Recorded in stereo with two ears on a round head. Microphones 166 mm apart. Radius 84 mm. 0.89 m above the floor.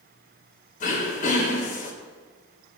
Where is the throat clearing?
50° left (ahead or behind), 4 m.